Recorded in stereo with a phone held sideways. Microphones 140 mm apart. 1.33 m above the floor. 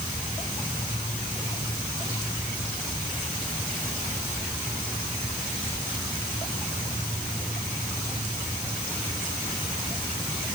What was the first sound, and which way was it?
Only background noise.